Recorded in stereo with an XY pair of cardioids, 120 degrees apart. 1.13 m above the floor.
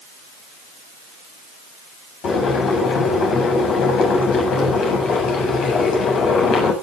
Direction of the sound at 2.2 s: 60° left.